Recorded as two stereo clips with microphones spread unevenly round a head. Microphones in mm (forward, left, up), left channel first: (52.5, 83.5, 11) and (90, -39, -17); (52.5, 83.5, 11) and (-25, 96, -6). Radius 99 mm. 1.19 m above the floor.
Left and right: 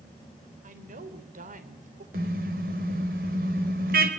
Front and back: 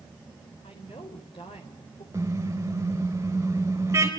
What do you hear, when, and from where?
0.6 s a woman speaking: 65° right, 4.5 m
2.1 s a car horn: 110° right, 3.5 m